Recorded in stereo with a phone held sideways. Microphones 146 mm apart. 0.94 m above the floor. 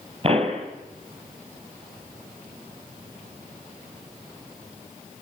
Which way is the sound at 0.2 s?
40° right (ahead or behind).